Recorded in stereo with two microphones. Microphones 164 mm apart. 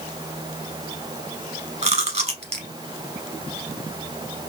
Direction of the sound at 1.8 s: 40° right (ahead or behind).